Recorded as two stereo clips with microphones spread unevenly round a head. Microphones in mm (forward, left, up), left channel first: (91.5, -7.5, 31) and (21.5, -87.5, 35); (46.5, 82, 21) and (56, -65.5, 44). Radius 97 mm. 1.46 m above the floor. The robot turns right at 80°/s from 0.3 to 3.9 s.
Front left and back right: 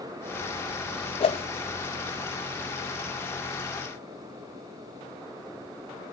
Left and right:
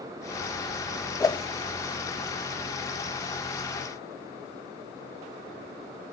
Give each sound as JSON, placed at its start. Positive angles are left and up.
{"t": 1.2, "sound": "a whoosh", "azimuth_deg": 20, "distance_m": 0.6}